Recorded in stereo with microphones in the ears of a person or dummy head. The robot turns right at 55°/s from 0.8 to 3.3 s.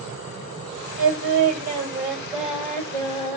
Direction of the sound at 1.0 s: 90° right.